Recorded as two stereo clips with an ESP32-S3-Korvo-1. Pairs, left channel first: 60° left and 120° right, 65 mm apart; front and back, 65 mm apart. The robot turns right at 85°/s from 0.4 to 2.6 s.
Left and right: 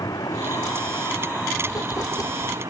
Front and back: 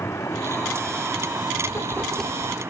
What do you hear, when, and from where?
0.0 s a vehicle: 45° left; by 2.7 s 130° right
1.7 s writing: 35° left; by 2.6 s 115° left